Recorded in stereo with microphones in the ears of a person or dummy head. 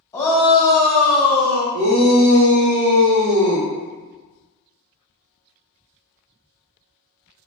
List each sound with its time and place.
0.1 s a shout: 15° left (ahead or behind), 0.9 m; by 1.6 s 50° right (ahead or behind), 1.4 m
1.7 s a shout: 75° right (ahead or behind), 0.8 m